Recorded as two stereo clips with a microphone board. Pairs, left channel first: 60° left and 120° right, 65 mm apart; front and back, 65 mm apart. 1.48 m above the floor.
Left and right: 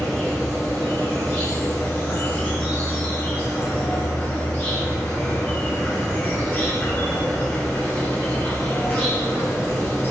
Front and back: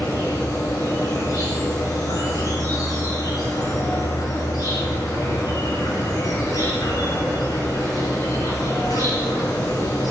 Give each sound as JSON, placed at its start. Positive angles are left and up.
{"t": 0.0, "sound": "an insect", "azimuth_deg": -10, "distance_m": 6.5}